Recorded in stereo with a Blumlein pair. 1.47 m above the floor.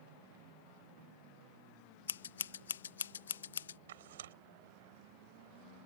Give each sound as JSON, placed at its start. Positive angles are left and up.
{"t": 2.1, "sound": "scissors", "azimuth_deg": 65}
{"t": 3.9, "sound": "tearing paper", "azimuth_deg": -60}